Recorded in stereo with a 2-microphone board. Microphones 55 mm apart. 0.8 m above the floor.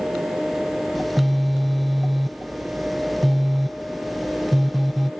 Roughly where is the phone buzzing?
Centre.